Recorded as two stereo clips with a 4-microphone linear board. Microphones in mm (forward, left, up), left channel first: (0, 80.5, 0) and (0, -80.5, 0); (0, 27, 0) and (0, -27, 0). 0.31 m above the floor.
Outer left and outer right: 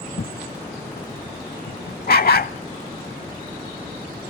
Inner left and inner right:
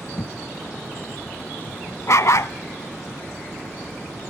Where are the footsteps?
60° left (ahead or behind), 0.7 m; by 2.5 s 75° left (ahead or behind), 1.8 m.